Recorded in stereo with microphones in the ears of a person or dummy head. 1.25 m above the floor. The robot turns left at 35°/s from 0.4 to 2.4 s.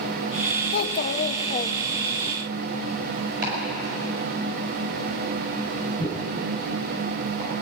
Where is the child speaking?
70° left, 0.7 m; by 2.3 s 15° left, 0.7 m.